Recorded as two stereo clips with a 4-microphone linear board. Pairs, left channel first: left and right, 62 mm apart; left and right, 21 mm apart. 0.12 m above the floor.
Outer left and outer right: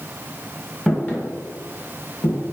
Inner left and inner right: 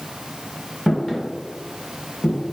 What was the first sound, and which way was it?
Footsteps, 10° left (ahead or behind).